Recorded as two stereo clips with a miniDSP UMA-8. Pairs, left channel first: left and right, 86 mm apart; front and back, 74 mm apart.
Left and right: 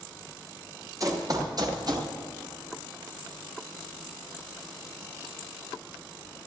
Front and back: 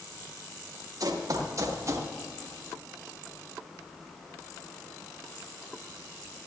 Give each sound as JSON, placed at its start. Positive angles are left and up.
{"t": 1.0, "sound": "running footsteps", "azimuth_deg": -140, "distance_m": 2.5}